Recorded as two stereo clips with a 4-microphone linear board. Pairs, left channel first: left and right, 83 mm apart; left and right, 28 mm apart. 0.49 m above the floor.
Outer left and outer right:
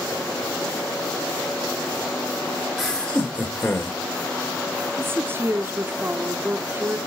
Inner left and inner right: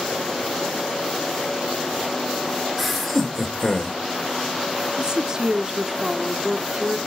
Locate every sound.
2.8 s laughter: centre (ahead or behind), 1.6 m; by 4.0 s 30° left (ahead or behind), 2.5 m
5.0 s a woman speaking: 25° right (ahead or behind), 0.7 m